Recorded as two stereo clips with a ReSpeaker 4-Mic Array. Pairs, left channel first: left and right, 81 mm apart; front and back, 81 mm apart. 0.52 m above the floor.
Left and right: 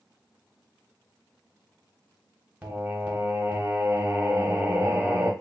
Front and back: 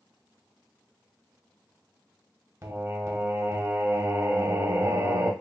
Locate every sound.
2.6 s singing: 155° right, 1.0 m